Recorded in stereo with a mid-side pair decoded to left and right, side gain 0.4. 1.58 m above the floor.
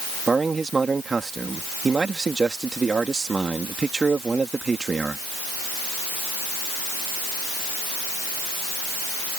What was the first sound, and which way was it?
A man speaking, 35° right.